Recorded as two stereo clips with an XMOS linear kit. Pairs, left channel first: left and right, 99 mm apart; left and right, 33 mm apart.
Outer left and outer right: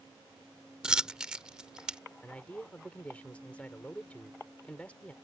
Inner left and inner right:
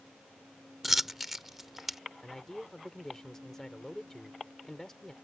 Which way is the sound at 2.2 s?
15° left (ahead or behind).